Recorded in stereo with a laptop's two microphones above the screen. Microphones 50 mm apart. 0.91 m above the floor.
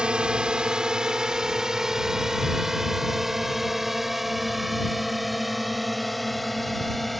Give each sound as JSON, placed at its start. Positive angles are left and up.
{"t": 0.0, "sound": "a drone", "side_deg": -20}